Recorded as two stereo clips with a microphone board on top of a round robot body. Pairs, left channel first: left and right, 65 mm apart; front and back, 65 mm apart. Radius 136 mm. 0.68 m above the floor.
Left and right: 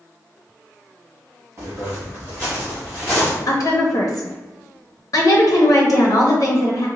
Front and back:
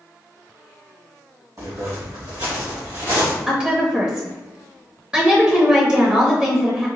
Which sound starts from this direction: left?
A woman speaking, at 3.5 s.